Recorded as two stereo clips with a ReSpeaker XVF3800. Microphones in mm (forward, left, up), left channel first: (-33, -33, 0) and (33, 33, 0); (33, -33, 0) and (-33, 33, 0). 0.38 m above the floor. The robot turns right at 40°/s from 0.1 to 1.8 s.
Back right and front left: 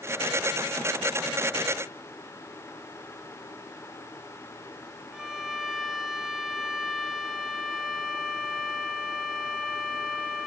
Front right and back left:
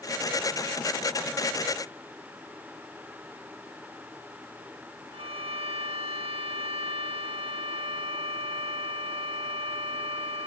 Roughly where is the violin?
Behind left.